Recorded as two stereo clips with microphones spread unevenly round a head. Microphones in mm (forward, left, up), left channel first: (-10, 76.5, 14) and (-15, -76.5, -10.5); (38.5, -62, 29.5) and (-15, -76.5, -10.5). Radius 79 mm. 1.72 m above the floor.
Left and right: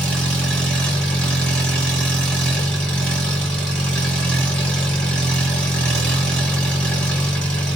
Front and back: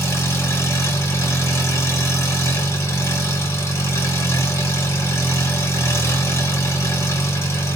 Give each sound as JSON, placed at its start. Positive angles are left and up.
{"t": 0.0, "sound": "an engine running", "azimuth_deg": 5, "distance_m": 1.4}